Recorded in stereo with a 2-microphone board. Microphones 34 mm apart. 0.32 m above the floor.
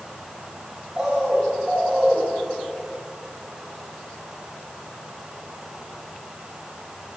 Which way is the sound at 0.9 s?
15° right (ahead or behind).